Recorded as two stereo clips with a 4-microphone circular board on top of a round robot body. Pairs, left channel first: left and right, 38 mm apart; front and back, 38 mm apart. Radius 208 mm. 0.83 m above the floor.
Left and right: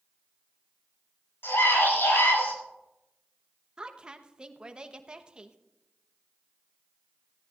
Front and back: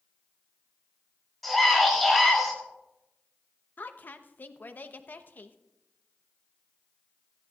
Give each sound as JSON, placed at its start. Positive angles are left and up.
{"t": 1.4, "sound": "a scream", "azimuth_deg": 85, "distance_m": 7.0}
{"t": 3.8, "sound": "a woman speaking", "azimuth_deg": -25, "distance_m": 1.1}